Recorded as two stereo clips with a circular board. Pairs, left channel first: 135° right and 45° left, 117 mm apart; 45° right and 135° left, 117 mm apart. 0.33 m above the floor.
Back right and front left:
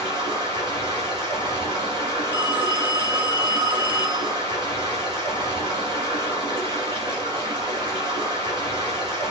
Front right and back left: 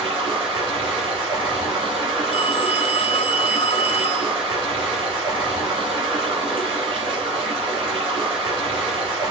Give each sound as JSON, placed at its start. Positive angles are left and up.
{"t": 0.0, "sound": "running water", "azimuth_deg": 90, "distance_m": 1.7}
{"t": 2.3, "sound": "a phone ringing", "azimuth_deg": -25, "distance_m": 0.7}